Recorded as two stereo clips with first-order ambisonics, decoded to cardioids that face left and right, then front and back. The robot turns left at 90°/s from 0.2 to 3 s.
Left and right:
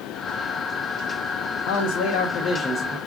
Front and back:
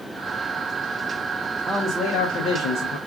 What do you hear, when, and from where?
1.7 s a man speaking: 100° left, 0.6 m; by 3.0 s 20° right, 0.6 m